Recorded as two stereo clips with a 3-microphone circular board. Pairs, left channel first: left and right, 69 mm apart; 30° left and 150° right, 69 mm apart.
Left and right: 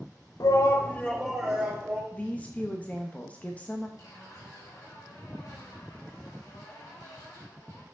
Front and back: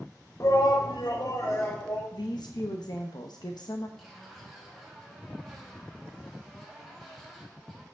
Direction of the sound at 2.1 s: 25° left.